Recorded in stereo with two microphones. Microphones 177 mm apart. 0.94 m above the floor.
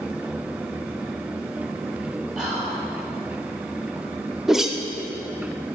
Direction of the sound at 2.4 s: Centre (ahead or behind).